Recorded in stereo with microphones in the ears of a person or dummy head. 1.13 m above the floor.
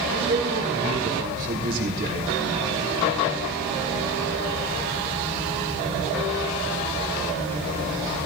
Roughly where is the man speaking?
Right.